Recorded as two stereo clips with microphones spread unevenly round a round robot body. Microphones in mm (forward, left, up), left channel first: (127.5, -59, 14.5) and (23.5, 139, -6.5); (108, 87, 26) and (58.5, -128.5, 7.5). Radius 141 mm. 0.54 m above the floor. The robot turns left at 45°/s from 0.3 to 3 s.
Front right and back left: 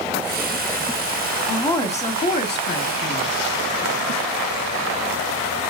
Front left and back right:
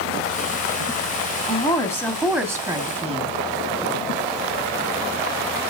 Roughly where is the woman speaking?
Ahead left.